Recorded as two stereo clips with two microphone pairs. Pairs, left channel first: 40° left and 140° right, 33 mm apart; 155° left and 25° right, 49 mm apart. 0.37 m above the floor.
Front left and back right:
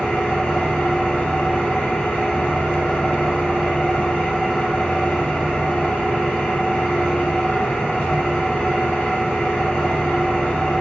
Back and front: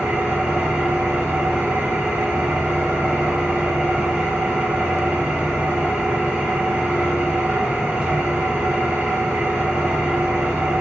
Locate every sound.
0.0 s an engine running: 45° left, 1.8 m